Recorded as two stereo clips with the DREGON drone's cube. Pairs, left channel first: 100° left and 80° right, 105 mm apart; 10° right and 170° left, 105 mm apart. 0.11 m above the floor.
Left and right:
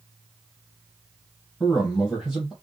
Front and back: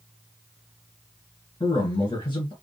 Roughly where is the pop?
I don't hear a pop.